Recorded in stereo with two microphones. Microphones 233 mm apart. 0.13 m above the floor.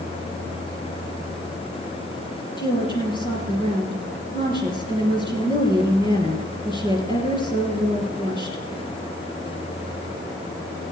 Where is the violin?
No violin in this recording.